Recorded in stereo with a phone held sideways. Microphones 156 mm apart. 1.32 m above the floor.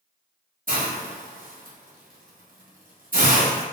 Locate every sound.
0.7 s a hiss: 65° right (ahead or behind), 0.9 m